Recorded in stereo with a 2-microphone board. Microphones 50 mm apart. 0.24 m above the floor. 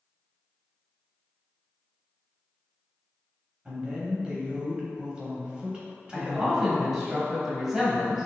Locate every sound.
3.6 s a woman speaking: 20° right (ahead or behind), 1.0 m
6.1 s a man speaking: 10° right (ahead or behind), 1.1 m